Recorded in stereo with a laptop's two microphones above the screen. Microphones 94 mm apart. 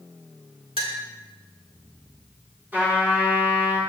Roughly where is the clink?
Right.